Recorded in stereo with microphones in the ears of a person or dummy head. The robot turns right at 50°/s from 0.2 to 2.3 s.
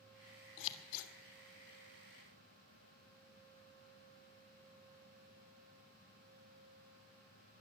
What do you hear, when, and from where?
0.6 s scissors: 65° left (ahead or behind), 1.6 m; by 1.1 s 80° left, 1.6 m